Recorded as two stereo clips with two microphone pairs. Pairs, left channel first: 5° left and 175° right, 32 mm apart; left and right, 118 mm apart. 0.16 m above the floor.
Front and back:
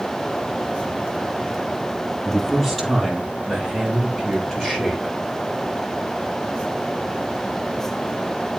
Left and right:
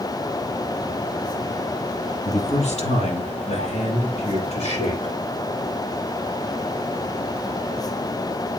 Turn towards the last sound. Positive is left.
turn(degrees=65)